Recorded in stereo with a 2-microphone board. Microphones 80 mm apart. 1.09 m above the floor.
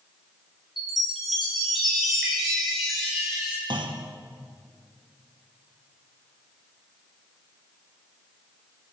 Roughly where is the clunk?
Right.